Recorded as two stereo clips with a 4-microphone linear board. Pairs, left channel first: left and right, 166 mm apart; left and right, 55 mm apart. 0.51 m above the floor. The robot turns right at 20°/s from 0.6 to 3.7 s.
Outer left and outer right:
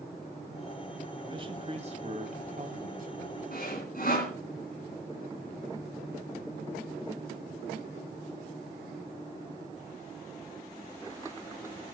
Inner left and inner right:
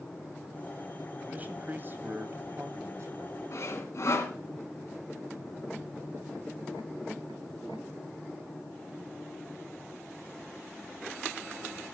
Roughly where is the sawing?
Left.